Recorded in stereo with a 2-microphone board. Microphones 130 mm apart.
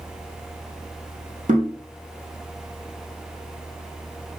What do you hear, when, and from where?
1.5 s knocking: 70° right (ahead or behind), 3 m